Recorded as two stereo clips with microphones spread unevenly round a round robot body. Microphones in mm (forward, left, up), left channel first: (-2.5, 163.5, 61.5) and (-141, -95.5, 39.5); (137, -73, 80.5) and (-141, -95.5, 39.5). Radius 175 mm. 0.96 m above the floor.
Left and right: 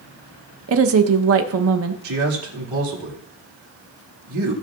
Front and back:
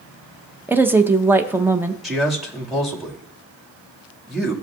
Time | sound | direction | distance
0.7 | a woman speaking | 100° right | 0.8 m
2.0 | a man speaking | 85° right | 2 m